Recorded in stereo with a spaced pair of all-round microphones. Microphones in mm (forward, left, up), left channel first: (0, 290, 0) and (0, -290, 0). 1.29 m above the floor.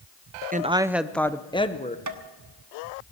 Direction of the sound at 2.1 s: 30° right (ahead or behind).